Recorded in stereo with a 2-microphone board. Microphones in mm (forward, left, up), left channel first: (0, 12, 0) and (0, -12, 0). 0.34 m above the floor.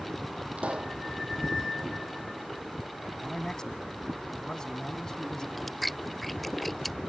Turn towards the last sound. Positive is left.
turn(degrees=10)  # may be behind; listen again after turning